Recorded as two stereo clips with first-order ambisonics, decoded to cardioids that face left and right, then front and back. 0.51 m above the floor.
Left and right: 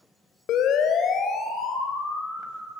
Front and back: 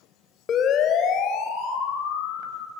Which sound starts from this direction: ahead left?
A siren, at 0.5 s.